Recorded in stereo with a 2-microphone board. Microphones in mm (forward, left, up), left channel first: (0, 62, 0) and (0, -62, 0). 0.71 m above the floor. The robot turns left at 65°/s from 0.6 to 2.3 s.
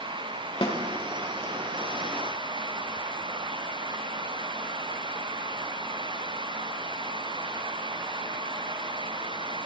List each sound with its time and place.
0.6 s a snare drum: 45° left (ahead or behind), 1.4 m; by 0.8 s 55° left (ahead or behind), 1.4 m